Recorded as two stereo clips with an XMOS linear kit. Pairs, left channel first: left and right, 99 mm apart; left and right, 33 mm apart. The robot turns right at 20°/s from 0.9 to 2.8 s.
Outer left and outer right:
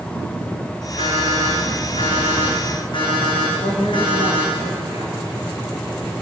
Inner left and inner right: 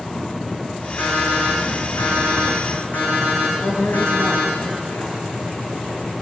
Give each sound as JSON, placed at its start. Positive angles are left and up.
{"t": 1.0, "sound": "an alarm clock", "azimuth_deg": 90, "distance_m": 7.0}
{"t": 3.6, "sound": "a woman speaking", "side_deg": 75, "distance_m": 4.0}